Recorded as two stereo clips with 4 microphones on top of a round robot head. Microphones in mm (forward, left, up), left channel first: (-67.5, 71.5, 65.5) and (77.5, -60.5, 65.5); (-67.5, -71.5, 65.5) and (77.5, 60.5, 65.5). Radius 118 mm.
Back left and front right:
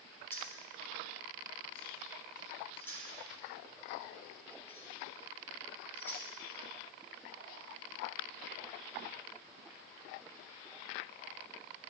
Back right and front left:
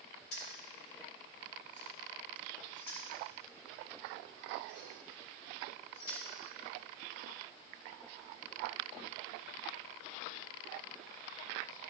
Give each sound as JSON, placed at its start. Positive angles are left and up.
{"t": 0.3, "sound": "keys jangling", "azimuth_deg": -140, "distance_m": 3.0}